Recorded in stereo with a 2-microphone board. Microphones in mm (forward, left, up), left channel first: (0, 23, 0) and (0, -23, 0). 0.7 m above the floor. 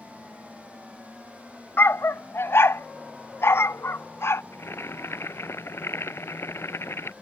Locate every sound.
1.8 s a dog barking: 70° left (ahead or behind); by 4.4 s 80° left
4.5 s boiling: 80° left